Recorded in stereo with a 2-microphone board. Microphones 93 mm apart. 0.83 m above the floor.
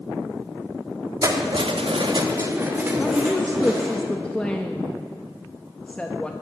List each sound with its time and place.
1.2 s keys jangling: 40° right (ahead or behind), 1.1 m; by 4.0 s 10° right (ahead or behind), 3.5 m
3.0 s a woman speaking: 10° left (ahead or behind), 0.6 m